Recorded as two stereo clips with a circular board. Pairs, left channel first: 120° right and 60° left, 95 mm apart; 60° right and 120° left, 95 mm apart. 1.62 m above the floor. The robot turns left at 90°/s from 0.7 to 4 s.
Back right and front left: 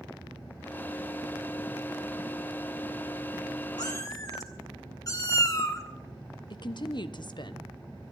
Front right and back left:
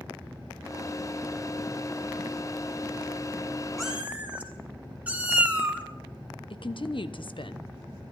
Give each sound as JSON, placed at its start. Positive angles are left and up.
{"t": 3.8, "sound": "a cat meowing", "azimuth_deg": -150, "distance_m": 2.0}
{"t": 6.5, "sound": "a woman speaking", "azimuth_deg": -85, "distance_m": 1.0}